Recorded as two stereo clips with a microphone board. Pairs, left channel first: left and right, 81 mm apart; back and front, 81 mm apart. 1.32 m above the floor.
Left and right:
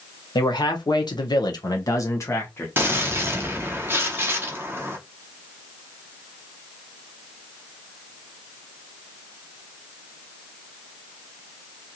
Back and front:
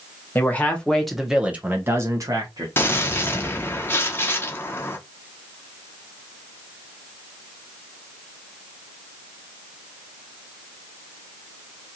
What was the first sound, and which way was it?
A man speaking, 115° left.